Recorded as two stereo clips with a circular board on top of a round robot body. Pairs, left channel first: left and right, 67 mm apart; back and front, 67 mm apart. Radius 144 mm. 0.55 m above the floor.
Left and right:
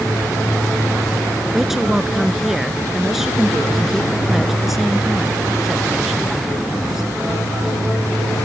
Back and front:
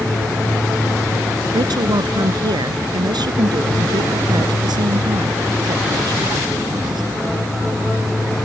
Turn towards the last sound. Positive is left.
turn(degrees=-5)